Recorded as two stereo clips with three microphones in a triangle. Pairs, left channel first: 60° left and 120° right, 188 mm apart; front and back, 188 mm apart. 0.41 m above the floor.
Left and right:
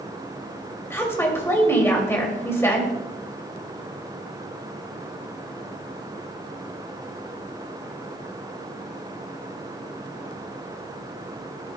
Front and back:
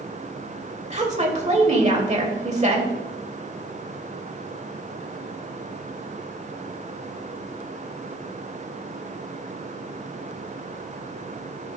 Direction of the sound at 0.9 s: 135° left.